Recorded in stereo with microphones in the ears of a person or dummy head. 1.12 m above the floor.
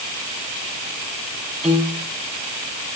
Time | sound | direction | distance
1.6 | a piano | centre (ahead or behind) | 3.5 m